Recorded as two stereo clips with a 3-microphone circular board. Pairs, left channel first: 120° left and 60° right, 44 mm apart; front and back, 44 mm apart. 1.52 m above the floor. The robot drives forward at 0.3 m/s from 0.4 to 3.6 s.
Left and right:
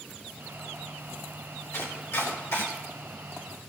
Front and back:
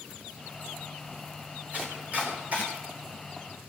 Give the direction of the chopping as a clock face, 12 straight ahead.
8 o'clock.